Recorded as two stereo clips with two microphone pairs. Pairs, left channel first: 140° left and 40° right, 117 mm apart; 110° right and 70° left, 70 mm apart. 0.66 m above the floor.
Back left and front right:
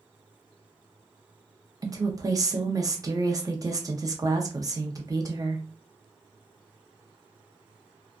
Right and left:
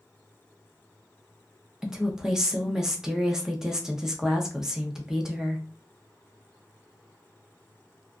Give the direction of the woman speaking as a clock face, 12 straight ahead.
12 o'clock.